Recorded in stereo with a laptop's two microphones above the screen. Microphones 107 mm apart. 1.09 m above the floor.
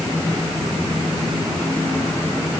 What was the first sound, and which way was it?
Only background noise.